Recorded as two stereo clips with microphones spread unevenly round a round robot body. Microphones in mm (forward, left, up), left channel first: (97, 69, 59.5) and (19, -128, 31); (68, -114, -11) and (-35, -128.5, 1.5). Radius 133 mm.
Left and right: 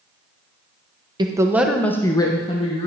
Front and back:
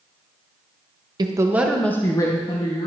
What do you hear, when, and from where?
1.2 s a woman speaking: 150° right, 1.1 m; by 2.9 s 5° left, 1.8 m